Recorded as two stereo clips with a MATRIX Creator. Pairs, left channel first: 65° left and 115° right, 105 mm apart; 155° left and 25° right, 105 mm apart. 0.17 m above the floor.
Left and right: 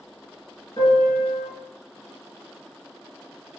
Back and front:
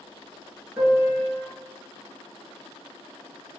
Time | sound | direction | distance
0.8 | a piano | 50° left | 1.9 m